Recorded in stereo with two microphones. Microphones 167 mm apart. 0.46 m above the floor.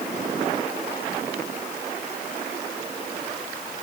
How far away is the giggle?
No giggle in this recording.